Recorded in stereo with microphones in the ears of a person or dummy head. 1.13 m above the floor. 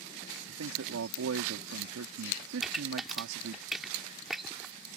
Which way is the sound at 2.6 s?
5° left (ahead or behind).